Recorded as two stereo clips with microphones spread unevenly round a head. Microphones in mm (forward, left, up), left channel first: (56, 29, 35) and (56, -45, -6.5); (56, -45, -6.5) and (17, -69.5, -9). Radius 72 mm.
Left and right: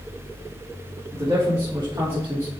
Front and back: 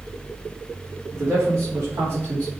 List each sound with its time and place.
1.1 s a man speaking: 150° right, 3.5 m; by 2.5 s 170° right, 2.5 m